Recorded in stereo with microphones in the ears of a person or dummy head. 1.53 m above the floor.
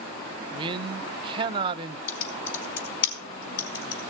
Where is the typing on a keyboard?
65° left (ahead or behind), 4.5 m.